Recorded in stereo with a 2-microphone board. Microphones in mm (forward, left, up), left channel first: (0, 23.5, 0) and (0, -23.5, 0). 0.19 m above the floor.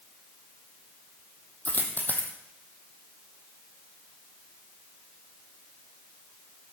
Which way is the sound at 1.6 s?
45° left (ahead or behind).